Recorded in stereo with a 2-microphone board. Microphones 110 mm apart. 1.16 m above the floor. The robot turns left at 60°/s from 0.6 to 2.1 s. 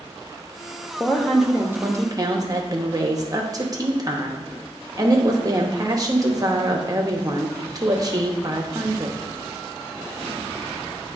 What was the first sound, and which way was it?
A woman speaking, 25° left.